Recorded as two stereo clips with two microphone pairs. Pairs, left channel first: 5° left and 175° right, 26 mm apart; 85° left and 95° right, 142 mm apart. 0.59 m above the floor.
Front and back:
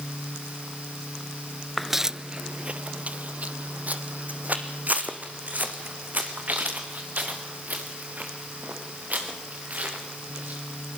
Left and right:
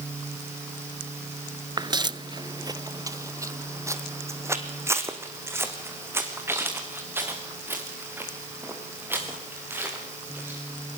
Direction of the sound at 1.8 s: 90° right.